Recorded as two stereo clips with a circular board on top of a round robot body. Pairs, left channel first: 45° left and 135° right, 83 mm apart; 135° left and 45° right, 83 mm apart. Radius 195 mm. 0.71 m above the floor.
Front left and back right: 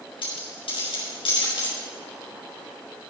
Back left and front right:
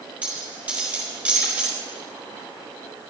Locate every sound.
0.2 s a dropped coin: 25° left, 4.5 m